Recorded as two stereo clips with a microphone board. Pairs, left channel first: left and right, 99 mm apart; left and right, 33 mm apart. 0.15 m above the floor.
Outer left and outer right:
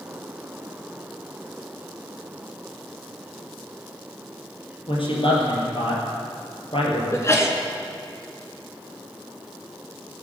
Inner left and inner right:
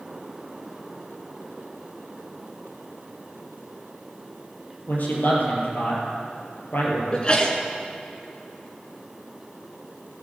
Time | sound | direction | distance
4.9 | a man speaking | 65° left (ahead or behind) | 4 m
7.1 | a sneeze | 30° left (ahead or behind) | 1.8 m